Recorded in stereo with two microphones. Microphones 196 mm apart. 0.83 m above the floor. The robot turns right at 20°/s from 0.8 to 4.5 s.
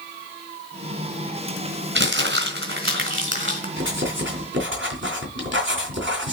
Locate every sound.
1.9 s crumpling: 70° right (ahead or behind), 3 m; by 3.7 s 75° right (ahead or behind), 3 m
3.8 s writing: 85° right, 3 m; by 6.3 s 80° right, 3 m